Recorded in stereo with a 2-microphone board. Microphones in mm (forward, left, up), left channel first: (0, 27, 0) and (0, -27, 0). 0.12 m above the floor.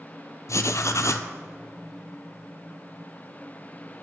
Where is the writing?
65° left (ahead or behind), 0.5 m.